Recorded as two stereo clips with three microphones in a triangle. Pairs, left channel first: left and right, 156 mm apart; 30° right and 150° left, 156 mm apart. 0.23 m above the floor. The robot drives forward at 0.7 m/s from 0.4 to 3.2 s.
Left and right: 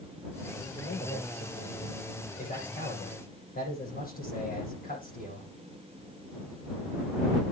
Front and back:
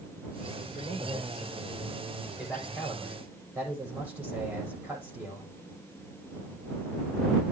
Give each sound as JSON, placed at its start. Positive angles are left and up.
{"t": 0.8, "sound": "a man speaking", "azimuth_deg": 60, "distance_m": 9.5}